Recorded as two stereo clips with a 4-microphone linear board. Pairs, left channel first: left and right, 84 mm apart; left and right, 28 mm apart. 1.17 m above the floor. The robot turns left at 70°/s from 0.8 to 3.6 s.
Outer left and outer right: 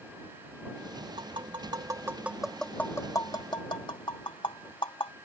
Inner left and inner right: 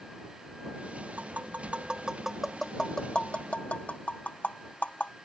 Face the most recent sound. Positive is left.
turn(degrees=75)  # may be behind; listen again after turning